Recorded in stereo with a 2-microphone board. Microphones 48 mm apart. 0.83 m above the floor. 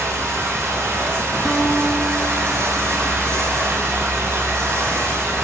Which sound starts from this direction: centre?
A guitar, at 1.4 s.